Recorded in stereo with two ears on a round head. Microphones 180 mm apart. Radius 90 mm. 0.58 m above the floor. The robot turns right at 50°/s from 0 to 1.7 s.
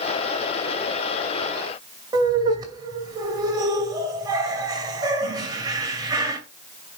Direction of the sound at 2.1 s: 20° right (ahead or behind).